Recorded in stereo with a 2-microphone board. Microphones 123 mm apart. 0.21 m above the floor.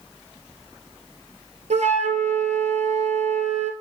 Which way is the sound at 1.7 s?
75° right (ahead or behind).